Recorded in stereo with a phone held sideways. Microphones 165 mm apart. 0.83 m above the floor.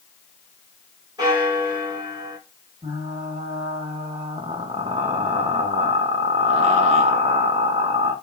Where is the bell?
25° right (ahead or behind), 2 m.